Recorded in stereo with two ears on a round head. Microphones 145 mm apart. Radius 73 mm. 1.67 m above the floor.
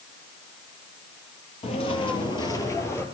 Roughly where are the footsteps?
Left.